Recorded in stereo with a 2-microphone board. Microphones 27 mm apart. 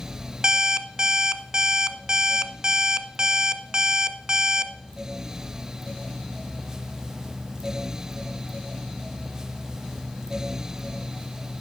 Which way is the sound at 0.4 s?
30° right (ahead or behind).